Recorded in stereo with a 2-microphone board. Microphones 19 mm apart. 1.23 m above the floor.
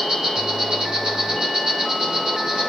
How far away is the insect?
About 5 m.